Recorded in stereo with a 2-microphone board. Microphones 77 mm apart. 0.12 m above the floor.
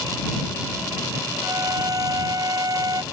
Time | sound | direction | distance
1.4 | a violin | 55° right (ahead or behind) | ?